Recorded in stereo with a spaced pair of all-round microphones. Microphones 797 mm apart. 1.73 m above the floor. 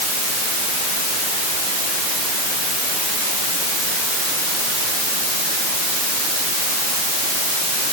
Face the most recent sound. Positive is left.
No sound to turn to.